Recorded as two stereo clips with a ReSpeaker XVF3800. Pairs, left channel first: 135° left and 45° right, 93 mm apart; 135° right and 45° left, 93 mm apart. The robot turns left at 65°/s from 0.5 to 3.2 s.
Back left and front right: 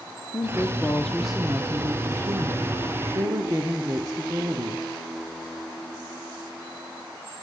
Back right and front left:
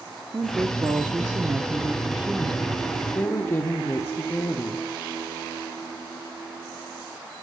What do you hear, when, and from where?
0.3 s a woman speaking: 90° left, 0.8 m; by 4.9 s 85° right, 0.8 m